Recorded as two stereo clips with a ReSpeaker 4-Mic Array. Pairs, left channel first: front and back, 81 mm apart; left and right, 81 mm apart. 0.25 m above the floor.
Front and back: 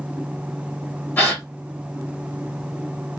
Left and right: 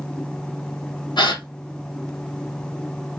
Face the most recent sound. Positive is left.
turn(degrees=65)